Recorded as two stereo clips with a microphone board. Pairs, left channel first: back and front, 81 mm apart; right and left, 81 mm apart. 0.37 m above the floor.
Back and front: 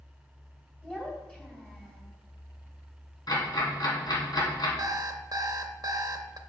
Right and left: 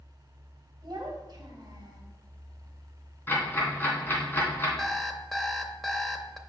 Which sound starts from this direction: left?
A child speaking, at 0.8 s.